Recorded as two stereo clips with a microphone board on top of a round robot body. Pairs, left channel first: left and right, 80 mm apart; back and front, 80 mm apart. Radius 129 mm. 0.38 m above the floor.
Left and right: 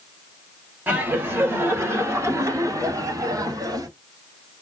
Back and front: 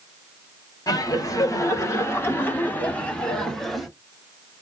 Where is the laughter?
150° right, 2.5 m; by 3.9 s 90° right, 2 m.